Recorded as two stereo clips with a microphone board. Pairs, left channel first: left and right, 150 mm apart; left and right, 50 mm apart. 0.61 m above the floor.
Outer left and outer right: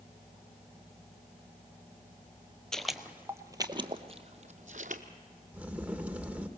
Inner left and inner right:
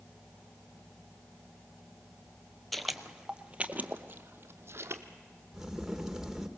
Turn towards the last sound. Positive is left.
turn(degrees=-10)  # may be behind; listen again after turning